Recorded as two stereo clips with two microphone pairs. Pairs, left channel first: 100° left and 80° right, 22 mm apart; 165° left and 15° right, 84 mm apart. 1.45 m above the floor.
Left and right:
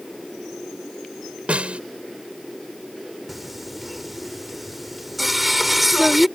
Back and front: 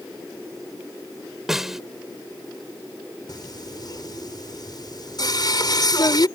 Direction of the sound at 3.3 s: 160° right.